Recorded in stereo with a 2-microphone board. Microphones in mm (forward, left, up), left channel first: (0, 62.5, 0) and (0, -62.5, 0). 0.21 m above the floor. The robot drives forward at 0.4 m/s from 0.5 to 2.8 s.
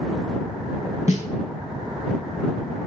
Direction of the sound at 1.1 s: 70° left (ahead or behind).